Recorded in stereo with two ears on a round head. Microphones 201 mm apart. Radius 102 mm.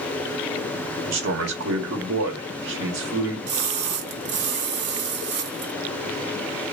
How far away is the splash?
About 0.7 m.